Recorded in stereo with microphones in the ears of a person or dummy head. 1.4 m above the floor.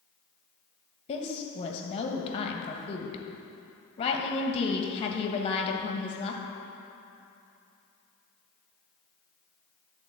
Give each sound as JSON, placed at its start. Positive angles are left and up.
{"t": 1.1, "sound": "a woman speaking", "side_deg": 35, "distance_m": 1.3}